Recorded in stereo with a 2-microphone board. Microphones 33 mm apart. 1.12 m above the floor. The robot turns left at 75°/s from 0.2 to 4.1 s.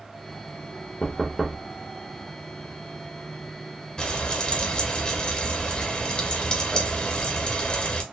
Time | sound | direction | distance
1.0 | knocking | 25° left | 0.8 m
4.0 | frying | 25° left (ahead or behind) | 0.9 m